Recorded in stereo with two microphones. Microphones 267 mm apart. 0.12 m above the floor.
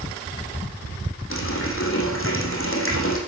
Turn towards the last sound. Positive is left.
turn(degrees=45)  # may be behind; listen again after turning